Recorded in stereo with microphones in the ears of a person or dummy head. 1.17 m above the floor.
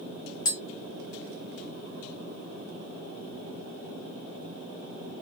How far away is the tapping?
About 1.1 m.